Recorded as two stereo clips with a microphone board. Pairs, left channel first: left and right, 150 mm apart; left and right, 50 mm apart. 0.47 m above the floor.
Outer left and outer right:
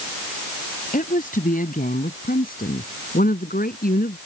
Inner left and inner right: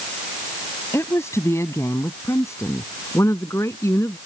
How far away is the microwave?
I don't hear a microwave.